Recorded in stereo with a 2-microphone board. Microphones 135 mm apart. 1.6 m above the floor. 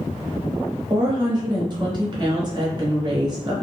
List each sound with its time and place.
0.9 s a woman speaking: 30° right (ahead or behind), 1.1 m